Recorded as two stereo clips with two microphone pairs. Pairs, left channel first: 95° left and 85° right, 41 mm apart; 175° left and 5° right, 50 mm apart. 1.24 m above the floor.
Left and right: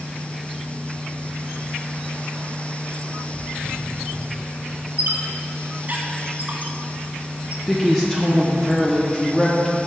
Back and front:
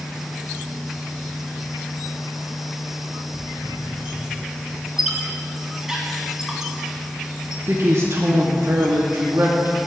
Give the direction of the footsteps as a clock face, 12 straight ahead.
6 o'clock.